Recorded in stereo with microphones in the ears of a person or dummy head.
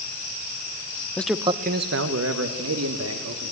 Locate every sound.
1.2 s a man speaking: 10° left (ahead or behind), 0.8 m; by 3.5 s 80° right, 3 m